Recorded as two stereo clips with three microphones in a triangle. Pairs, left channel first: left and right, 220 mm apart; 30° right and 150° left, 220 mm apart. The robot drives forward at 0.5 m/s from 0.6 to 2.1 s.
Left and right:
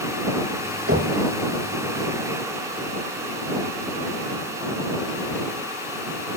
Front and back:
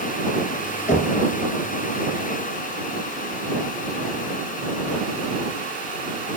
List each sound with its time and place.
0.9 s knocking: 85° right, 6 m